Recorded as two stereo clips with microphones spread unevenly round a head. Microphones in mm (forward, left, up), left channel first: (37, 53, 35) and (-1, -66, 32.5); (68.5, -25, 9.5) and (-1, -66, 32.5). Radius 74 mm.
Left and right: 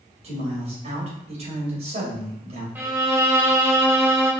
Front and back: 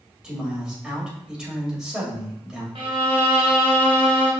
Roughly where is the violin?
Behind.